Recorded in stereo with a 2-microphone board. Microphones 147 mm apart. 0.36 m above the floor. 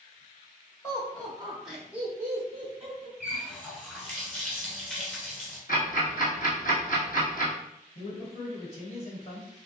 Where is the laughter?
20° left (ahead or behind), 1.2 m; by 3.1 s 35° right (ahead or behind), 1.4 m.